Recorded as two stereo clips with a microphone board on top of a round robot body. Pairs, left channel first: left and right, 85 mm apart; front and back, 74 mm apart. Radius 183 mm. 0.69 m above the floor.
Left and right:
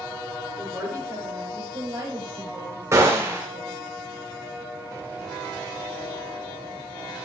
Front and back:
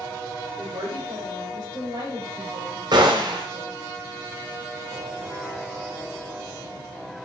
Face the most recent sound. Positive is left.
turn(degrees=-150)